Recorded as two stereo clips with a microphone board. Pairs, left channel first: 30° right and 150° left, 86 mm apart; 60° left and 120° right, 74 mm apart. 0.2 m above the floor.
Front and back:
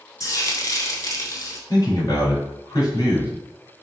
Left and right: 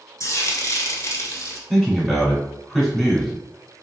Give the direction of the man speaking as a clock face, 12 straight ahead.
1 o'clock.